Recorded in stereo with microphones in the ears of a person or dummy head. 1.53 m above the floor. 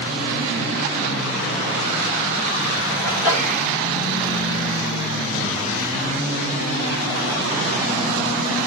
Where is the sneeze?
5° right (ahead or behind), 8.5 m.